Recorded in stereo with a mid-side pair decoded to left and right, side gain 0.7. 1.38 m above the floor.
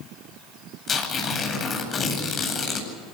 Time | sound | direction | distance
0.9 | tearing paper | 35° left | 9 m